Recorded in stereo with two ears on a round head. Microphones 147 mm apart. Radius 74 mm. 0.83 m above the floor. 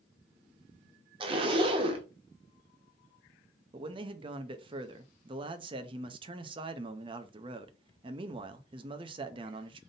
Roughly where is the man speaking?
Right.